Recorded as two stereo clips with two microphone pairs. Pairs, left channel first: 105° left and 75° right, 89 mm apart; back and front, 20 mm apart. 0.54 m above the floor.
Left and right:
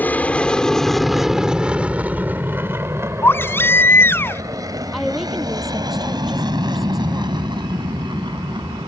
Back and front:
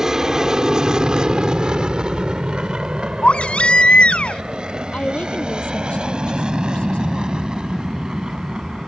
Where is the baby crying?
165° left.